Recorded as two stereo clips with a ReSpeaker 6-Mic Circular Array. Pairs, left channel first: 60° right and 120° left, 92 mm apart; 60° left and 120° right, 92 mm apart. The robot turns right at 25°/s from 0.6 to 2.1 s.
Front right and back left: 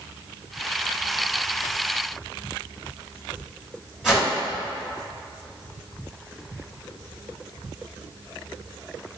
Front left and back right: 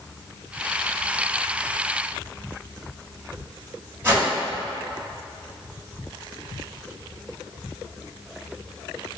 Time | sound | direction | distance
4.0 | a whoosh | 160° right | 1.6 m